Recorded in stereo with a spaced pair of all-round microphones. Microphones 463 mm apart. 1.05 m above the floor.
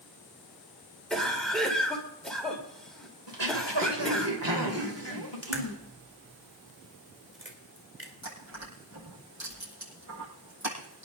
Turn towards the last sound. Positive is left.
turn(degrees=-40)  # may be behind; listen again after turning